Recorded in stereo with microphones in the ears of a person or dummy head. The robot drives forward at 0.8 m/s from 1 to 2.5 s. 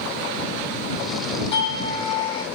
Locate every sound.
1.5 s a doorbell: 35° left (ahead or behind), 2.5 m; by 2.4 s 25° left (ahead or behind), 3 m